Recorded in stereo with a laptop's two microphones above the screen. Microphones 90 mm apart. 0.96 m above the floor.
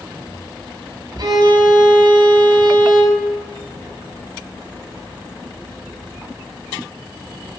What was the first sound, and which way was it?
A violin, 60° right (ahead or behind).